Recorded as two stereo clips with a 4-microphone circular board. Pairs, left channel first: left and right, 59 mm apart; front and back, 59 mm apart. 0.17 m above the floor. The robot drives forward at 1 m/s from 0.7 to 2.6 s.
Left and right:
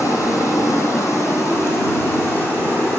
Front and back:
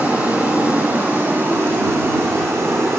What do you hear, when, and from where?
0.0 s running water: 120° left, 3 m; by 3.0 s 140° left, 4.5 m